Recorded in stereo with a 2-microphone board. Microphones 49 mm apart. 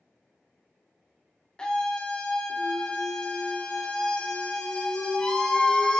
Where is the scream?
15° left (ahead or behind), 0.6 m.